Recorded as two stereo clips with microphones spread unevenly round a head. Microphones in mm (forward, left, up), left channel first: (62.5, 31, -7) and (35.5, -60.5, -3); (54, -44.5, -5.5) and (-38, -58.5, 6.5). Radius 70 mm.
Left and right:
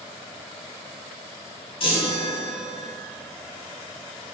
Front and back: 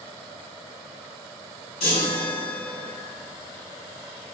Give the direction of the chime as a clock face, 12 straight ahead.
10 o'clock.